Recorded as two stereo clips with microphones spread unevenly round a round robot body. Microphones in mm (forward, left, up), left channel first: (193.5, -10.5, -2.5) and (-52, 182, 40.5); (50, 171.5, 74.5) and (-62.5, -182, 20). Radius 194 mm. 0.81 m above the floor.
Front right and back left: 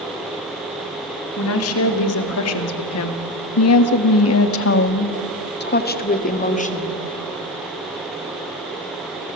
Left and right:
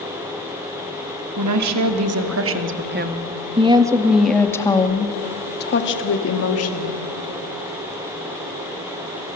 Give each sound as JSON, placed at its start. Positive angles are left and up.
{"t": 1.4, "sound": "a woman speaking", "azimuth_deg": -80, "distance_m": 2.5}